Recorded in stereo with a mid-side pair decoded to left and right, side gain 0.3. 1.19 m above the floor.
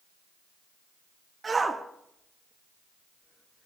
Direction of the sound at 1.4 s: 45° right.